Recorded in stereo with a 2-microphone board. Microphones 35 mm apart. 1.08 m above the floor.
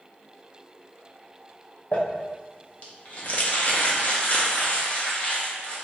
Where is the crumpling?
45° left (ahead or behind), 0.8 m.